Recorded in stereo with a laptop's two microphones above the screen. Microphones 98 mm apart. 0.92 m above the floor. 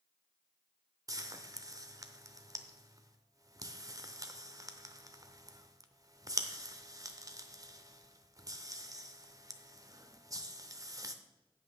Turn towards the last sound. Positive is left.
turn(degrees=-35)  # may be behind; listen again after turning